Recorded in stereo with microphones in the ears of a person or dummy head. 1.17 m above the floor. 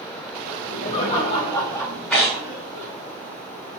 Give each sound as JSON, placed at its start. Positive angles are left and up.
{"t": 0.5, "sound": "laughter", "side_deg": 45, "distance_m": 1.2}
{"t": 2.1, "sound": "tearing paper", "side_deg": 10, "distance_m": 0.8}